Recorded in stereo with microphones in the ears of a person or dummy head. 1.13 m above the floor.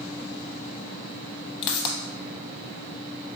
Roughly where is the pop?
Left.